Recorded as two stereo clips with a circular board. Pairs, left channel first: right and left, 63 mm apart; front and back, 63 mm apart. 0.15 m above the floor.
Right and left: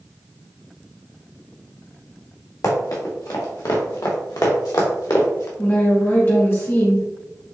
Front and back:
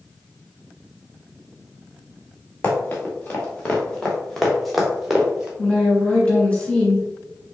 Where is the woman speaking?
65° right, 1.8 m.